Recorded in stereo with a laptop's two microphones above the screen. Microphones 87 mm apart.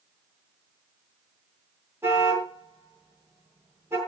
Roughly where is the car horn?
Right.